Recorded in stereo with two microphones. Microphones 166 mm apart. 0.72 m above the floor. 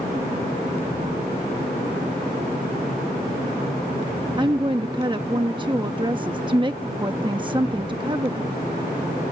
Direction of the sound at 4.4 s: 30° right (ahead or behind).